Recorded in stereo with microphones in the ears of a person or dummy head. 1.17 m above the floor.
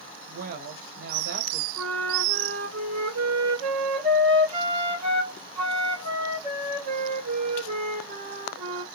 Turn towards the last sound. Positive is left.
turn(degrees=-30)  # may be behind; listen again after turning